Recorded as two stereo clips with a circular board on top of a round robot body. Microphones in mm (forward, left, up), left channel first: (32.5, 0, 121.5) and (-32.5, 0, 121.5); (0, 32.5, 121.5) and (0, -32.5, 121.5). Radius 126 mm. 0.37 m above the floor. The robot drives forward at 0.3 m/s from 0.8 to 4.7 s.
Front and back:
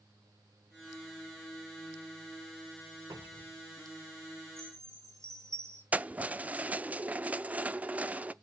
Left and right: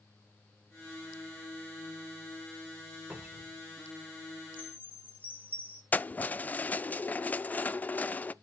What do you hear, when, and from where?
3.1 s a cupboard door: 155° right, 1.9 m; by 3.6 s 160° right, 2 m
4.6 s a chime: 145° left, 2.5 m
5.9 s keys jangling: 130° left, 0.5 m